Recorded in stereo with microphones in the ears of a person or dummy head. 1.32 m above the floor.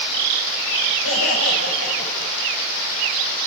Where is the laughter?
80° left, 6.5 m; by 2.3 s 85° left, 6.5 m.